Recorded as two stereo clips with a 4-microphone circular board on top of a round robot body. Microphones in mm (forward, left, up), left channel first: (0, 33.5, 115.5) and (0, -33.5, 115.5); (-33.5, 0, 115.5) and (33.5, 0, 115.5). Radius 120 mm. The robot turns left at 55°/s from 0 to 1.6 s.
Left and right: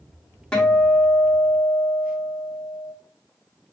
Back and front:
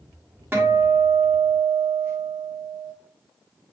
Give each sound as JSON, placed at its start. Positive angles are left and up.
{"t": 0.5, "sound": "a guitar", "azimuth_deg": 25, "distance_m": 1.6}